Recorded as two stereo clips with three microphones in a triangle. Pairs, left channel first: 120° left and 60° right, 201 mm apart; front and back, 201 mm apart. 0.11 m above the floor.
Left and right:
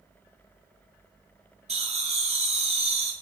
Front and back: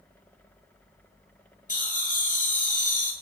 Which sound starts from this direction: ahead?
Laughter, at 1.7 s.